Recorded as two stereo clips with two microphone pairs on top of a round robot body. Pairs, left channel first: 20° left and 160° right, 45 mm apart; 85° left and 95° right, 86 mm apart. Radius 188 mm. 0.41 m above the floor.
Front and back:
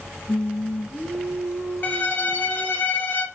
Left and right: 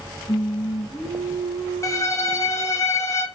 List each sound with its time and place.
0.3 s singing: 30° left, 0.7 m
1.8 s a violin: 45° left, 0.9 m